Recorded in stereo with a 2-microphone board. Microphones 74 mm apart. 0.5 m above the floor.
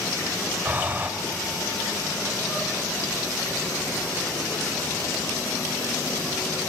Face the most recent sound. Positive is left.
turn(degrees=-25)  # may be behind; listen again after turning